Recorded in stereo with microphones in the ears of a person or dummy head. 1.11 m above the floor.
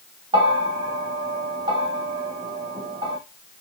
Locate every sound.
0.3 s a bell: 30° right (ahead or behind), 0.6 m